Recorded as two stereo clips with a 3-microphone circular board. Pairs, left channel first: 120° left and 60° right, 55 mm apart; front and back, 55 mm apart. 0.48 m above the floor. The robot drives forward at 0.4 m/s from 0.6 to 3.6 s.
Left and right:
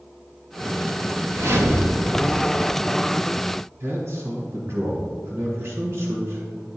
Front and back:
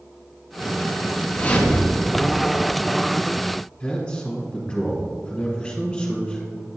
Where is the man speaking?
80° right, 1.9 m.